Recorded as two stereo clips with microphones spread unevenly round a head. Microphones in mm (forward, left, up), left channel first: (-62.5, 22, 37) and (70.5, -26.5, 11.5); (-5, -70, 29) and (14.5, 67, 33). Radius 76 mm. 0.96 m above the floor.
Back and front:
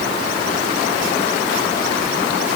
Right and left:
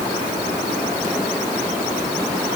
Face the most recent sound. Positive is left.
No sound to turn to.